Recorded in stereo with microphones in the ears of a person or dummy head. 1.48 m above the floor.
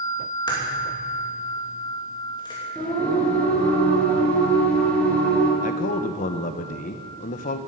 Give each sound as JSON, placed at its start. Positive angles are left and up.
{"t": 0.5, "sound": "a crack", "side_deg": 20, "distance_m": 3.0}
{"t": 2.8, "sound": "singing", "side_deg": 5, "distance_m": 4.0}
{"t": 5.6, "sound": "a man speaking", "side_deg": 40, "distance_m": 0.9}